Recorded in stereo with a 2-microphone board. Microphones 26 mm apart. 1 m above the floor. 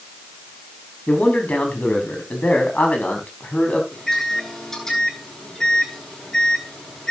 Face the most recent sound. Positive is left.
turn(degrees=20)  # may be behind; listen again after turning